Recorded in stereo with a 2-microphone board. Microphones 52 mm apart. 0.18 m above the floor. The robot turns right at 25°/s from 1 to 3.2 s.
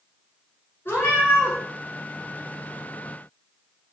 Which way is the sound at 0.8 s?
45° left (ahead or behind).